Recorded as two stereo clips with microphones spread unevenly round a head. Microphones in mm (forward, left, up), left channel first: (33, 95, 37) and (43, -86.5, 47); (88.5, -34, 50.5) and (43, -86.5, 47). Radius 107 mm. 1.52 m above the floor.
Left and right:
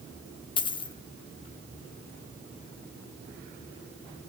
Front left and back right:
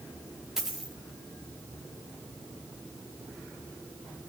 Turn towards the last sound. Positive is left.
turn(degrees=140)